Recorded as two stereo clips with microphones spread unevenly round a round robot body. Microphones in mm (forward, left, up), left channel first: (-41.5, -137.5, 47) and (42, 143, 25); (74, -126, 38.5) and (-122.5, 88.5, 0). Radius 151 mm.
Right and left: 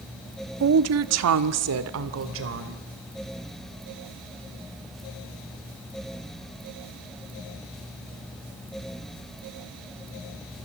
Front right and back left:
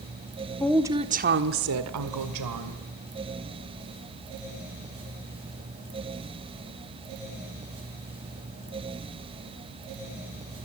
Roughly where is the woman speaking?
Ahead left.